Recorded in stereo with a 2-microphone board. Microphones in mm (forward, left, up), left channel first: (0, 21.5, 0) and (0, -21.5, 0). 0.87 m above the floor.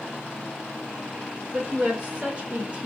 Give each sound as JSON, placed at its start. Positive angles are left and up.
{"t": 1.5, "sound": "a woman speaking", "side_deg": -30, "distance_m": 2.5}